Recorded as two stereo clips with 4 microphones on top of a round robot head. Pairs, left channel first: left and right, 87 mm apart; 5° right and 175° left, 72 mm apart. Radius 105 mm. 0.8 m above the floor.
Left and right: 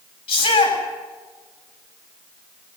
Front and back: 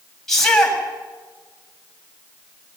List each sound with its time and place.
0.3 s a shout: 75° left, 6.5 m